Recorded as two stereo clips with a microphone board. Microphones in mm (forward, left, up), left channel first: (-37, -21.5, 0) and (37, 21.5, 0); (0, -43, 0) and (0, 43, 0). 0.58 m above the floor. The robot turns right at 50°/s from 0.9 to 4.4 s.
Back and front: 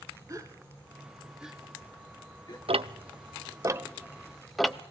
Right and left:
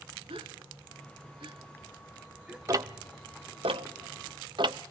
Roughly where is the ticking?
Ahead left.